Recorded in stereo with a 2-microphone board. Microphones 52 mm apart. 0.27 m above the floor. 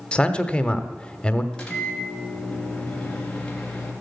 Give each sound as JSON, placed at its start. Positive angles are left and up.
{"t": 0.1, "sound": "a man speaking", "side_deg": 20, "distance_m": 1.0}
{"t": 1.5, "sound": "a microwave", "side_deg": 15, "distance_m": 3.0}